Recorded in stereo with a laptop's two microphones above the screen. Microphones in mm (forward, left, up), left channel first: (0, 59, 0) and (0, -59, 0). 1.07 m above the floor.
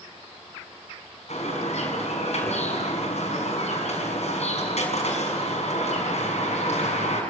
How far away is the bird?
About 6 m.